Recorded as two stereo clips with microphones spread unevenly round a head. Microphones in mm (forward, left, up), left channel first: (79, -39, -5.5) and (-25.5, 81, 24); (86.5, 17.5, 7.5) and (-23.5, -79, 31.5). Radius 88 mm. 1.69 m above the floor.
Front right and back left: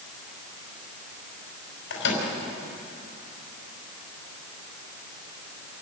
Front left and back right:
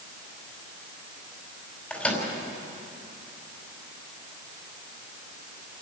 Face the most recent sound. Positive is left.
turn(degrees=-45)